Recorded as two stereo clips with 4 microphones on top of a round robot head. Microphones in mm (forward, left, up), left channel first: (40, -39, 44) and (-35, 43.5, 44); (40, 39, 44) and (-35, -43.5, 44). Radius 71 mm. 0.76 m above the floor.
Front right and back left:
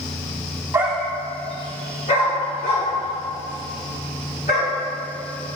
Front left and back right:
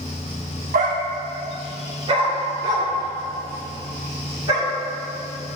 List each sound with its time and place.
0.7 s a dog barking: 160° right, 0.7 m; by 4.7 s 75° right, 5 m